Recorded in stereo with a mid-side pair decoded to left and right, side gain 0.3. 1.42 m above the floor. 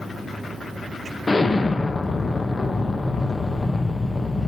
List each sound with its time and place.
1.3 s an explosion: 30° left, 1.1 m